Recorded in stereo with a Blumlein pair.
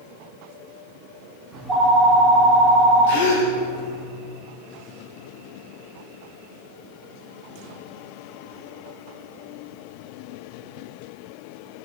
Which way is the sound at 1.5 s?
10° right.